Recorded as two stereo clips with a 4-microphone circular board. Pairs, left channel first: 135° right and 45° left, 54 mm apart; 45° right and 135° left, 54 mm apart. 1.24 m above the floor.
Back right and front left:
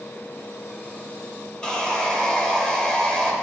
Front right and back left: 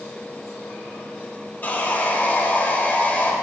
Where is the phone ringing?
I don't hear a phone ringing.